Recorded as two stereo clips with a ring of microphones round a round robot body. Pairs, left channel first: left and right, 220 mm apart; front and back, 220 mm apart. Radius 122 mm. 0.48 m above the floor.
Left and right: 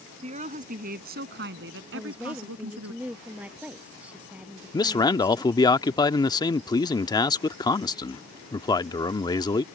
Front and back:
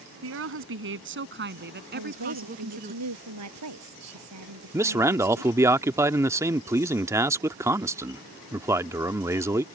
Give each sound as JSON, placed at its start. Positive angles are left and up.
{"t": 0.2, "sound": "a woman speaking", "azimuth_deg": -155}
{"t": 1.9, "sound": "a woman speaking", "azimuth_deg": -175}
{"t": 4.7, "sound": "a man speaking", "azimuth_deg": 125}